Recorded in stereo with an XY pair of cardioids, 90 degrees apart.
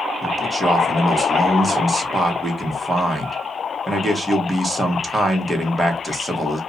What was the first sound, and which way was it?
A man speaking, 15° right.